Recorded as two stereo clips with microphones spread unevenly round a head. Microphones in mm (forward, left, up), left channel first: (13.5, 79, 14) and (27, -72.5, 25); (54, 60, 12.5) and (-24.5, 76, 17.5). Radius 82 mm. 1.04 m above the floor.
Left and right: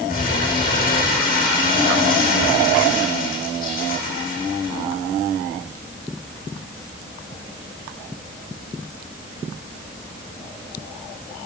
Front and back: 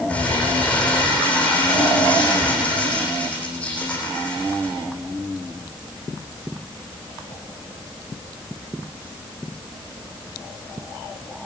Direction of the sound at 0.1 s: 65° left.